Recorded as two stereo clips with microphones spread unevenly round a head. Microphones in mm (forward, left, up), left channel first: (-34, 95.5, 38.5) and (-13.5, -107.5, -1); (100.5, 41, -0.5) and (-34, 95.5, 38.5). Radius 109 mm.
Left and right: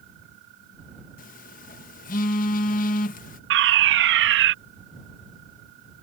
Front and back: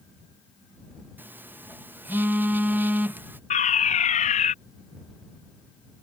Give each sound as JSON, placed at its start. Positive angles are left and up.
{"t": 1.2, "sound": "a phone buzzing", "azimuth_deg": 100}
{"t": 3.5, "sound": "a fire alarm", "azimuth_deg": -65}